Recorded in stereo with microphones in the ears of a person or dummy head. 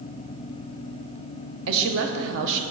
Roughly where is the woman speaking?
Right.